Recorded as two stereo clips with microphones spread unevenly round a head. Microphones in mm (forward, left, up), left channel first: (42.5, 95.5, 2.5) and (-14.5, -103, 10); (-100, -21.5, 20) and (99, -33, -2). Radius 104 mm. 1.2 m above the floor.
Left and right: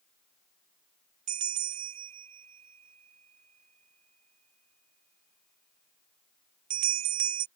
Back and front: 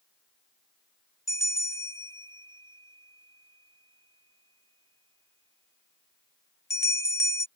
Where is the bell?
110° right.